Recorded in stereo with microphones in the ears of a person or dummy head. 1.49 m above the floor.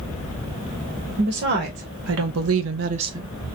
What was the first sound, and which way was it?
A woman speaking, 50° right (ahead or behind).